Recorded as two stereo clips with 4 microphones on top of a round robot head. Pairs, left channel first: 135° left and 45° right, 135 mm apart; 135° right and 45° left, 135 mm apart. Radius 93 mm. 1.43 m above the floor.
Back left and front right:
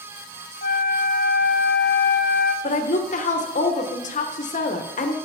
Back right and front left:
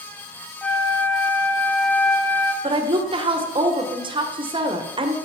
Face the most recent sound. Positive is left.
turn(degrees=100)